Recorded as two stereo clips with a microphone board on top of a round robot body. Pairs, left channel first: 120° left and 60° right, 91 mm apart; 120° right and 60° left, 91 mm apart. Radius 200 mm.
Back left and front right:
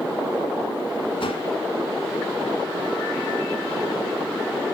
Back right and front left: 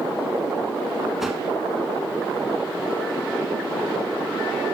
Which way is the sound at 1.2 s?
150° left.